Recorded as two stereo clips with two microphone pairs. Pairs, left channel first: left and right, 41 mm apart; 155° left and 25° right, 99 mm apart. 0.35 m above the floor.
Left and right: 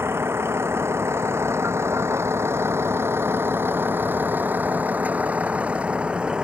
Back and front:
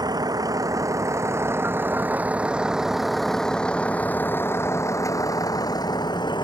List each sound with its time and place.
0.0 s a vehicle: 75° right; by 6.4 s 160° right